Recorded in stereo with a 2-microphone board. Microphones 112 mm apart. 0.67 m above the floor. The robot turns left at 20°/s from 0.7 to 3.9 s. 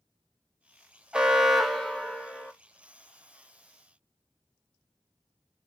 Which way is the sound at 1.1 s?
10° right (ahead or behind).